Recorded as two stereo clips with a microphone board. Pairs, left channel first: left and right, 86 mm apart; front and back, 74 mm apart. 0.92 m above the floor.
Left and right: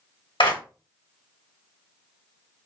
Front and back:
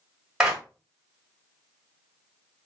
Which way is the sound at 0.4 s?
95° left.